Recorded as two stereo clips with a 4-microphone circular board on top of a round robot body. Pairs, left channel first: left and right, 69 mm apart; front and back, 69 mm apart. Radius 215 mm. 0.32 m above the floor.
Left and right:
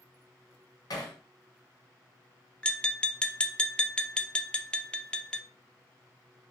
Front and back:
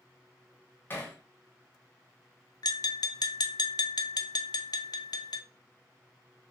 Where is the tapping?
15° left, 0.6 m.